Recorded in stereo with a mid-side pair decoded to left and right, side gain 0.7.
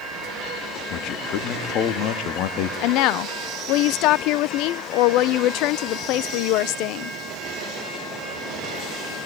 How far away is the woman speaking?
About 0.6 m.